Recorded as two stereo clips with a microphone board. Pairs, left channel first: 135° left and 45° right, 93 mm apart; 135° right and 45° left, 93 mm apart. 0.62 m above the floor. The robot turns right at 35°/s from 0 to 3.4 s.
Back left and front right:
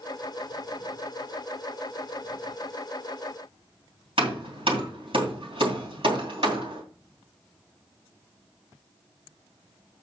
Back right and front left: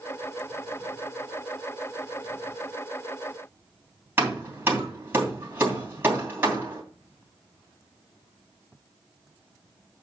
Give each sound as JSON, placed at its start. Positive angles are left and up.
{"t": 4.2, "sound": "hammering", "azimuth_deg": -25, "distance_m": 2.5}